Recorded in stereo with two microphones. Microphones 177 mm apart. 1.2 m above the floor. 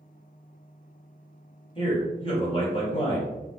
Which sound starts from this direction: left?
A man speaking, at 1.8 s.